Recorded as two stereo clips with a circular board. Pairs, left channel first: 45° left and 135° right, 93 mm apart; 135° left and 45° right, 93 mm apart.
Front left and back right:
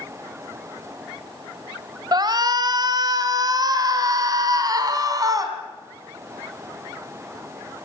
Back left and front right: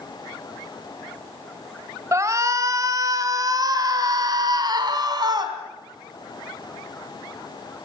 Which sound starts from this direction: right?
A shout, at 2.1 s.